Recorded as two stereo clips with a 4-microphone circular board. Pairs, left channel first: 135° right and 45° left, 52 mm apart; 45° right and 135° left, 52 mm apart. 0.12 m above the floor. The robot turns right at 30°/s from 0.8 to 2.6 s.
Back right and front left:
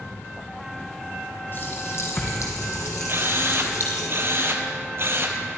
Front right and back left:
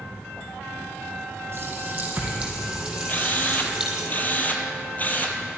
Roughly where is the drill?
Ahead.